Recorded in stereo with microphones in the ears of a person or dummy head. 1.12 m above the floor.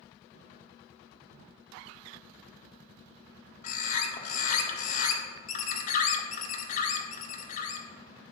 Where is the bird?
45° left (ahead or behind), 1.7 m.